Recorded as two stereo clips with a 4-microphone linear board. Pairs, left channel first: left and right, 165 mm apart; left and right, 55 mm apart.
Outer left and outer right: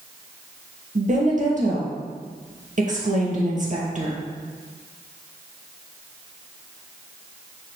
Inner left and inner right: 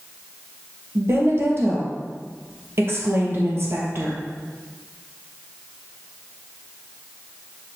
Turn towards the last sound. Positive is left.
turn(degrees=-50)  # may be behind; listen again after turning